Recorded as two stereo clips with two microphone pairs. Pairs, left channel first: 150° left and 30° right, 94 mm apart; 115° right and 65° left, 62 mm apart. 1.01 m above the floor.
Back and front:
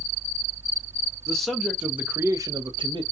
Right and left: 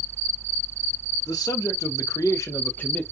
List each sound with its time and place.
1.3 s a man speaking: 125° right, 1.0 m; by 3.0 s 45° right, 0.6 m